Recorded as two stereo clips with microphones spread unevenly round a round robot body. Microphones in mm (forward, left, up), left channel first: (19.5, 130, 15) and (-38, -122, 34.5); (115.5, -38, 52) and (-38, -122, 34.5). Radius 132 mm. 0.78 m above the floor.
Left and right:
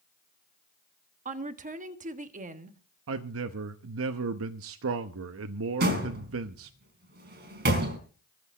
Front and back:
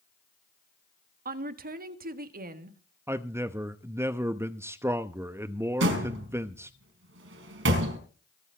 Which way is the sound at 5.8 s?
155° right.